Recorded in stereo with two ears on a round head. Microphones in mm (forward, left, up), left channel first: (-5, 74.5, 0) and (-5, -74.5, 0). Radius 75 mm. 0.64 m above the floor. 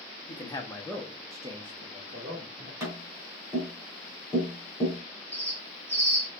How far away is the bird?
About 1.8 m.